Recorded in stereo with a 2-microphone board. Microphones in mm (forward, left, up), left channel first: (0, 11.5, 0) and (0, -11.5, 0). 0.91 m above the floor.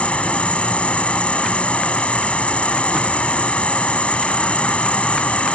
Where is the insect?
70° left (ahead or behind).